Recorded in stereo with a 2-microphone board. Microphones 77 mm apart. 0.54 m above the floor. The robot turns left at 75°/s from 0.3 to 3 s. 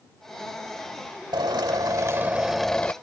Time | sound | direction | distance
1.3 | a drill | 85° right | ?